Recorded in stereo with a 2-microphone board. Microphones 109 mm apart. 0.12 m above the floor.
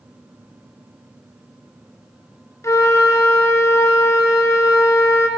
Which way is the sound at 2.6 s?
30° left (ahead or behind).